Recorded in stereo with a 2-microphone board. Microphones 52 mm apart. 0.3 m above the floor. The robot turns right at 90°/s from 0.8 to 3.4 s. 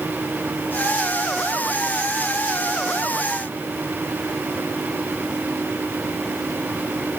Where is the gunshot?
No gunshot in this recording.